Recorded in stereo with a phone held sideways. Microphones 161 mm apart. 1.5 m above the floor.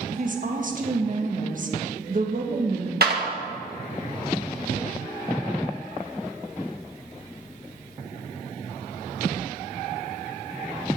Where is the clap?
75° right (ahead or behind), 1.6 m.